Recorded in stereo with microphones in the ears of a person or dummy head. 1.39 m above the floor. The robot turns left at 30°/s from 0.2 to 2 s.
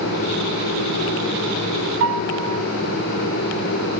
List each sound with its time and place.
2.0 s a piano: 55° right (ahead or behind), 2 m